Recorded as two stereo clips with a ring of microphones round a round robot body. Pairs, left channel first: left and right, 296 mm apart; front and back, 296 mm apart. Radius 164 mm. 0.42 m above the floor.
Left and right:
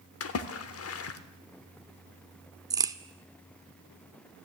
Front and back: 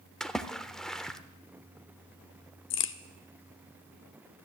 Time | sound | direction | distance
0.2 | a splash | 85° left | 0.8 m
2.7 | a crack | 15° right | 0.6 m